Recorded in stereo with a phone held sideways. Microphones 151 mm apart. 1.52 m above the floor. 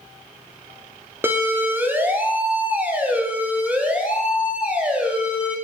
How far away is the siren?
About 3.5 m.